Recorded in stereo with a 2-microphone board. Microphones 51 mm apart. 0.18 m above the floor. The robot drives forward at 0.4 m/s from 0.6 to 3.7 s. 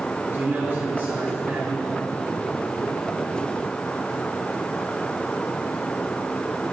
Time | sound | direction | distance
0.3 | a man speaking | 40° right (ahead or behind) | 3 m